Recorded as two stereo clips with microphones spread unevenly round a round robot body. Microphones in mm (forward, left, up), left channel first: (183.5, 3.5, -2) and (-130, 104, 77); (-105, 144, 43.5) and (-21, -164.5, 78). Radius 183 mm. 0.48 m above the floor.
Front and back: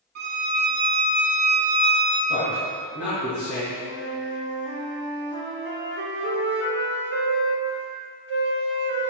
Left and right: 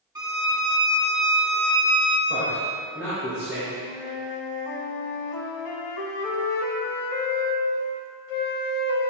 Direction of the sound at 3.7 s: 105° left.